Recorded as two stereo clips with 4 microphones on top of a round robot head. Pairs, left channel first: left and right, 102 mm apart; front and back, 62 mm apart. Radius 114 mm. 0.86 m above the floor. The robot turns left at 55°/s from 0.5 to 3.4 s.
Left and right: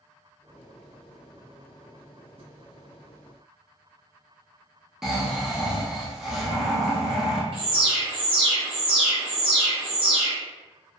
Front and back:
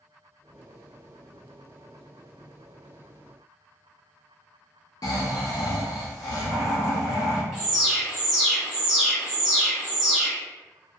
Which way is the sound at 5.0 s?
5° right.